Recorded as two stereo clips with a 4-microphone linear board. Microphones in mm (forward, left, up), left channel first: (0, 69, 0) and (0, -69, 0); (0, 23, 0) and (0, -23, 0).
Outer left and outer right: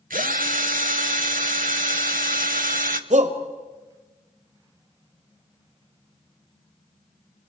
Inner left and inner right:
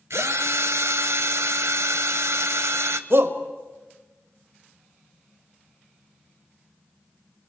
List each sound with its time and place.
0.1 s a drill: 80° right, 0.9 m
3.1 s a shout: 60° right (ahead or behind), 1.7 m